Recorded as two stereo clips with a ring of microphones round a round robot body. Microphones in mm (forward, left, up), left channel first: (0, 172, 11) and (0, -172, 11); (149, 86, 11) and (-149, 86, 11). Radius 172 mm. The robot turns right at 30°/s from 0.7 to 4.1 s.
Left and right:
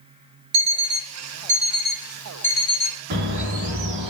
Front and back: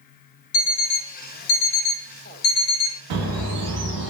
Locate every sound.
0.5 s an alarm clock: 45° right, 0.6 m; by 3.0 s 25° left, 0.6 m
3.1 s a bird: 160° right, 0.8 m; by 4.1 s 130° right, 0.8 m